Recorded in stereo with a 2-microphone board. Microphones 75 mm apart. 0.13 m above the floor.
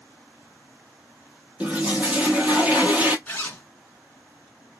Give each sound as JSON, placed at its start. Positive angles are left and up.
{"t": 1.6, "sound": "a toilet flushing", "side_deg": -20, "distance_m": 0.6}
{"t": 3.3, "sound": "a zipper", "side_deg": 20, "distance_m": 1.2}